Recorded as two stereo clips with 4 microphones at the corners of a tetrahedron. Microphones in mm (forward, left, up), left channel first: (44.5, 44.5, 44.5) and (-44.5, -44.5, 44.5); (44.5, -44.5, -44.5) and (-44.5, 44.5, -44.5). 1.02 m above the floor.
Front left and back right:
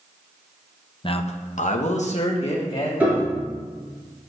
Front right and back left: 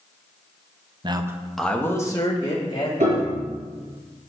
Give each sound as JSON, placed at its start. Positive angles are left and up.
{"t": 1.0, "sound": "a man speaking", "azimuth_deg": 90, "distance_m": 0.8}
{"t": 3.0, "sound": "a piano", "azimuth_deg": 145, "distance_m": 3.5}